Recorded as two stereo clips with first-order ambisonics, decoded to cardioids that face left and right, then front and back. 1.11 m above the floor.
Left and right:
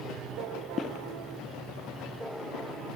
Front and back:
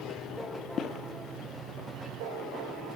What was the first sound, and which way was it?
Footsteps, 45° left.